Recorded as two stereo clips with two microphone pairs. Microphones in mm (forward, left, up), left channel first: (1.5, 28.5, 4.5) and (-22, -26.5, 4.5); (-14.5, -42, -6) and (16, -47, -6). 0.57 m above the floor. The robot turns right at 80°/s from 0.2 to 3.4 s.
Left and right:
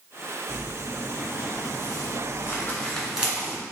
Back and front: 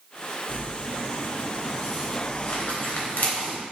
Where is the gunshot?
No gunshot in this recording.